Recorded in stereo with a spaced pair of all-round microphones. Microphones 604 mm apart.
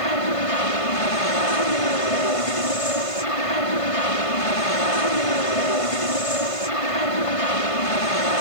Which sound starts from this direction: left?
An aircraft, at 0.0 s.